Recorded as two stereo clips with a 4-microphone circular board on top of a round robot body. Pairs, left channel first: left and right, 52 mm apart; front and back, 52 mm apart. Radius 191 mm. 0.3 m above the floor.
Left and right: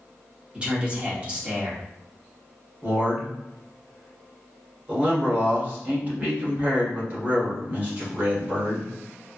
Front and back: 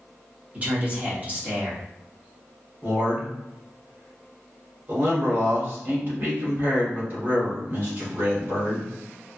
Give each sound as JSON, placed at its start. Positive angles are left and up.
{"t": 0.5, "sound": "a man speaking", "azimuth_deg": -145, "distance_m": 1.6}
{"t": 2.8, "sound": "a man speaking", "azimuth_deg": -145, "distance_m": 1.9}